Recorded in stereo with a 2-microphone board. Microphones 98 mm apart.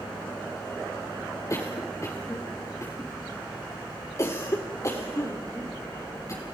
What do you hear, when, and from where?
1.5 s a cough: 35° left (ahead or behind), 1.9 m